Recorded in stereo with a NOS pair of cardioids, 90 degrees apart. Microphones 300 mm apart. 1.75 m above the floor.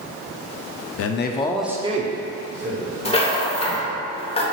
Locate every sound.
1.0 s a man speaking: 55° left, 0.6 m; by 4.0 s 50° right, 2.5 m
3.0 s a rattle: 20° left, 1.2 m